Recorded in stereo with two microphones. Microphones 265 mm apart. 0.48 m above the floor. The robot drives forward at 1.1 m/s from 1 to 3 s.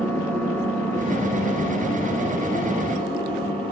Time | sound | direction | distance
0.0 | an engine running | 5° left (ahead or behind) | 4.5 m